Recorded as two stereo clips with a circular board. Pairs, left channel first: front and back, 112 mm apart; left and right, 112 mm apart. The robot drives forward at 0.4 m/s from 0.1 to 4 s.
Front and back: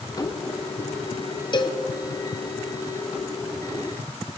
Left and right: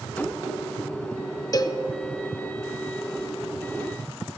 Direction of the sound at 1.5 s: 40° left.